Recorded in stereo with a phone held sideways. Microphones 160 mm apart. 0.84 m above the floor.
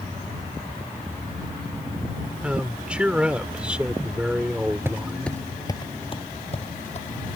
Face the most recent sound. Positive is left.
turn(degrees=45)  # may be behind; listen again after turning